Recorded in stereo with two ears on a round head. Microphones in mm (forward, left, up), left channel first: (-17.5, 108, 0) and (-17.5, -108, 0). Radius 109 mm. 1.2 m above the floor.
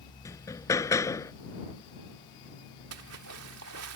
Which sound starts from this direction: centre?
Hammering, at 0.2 s.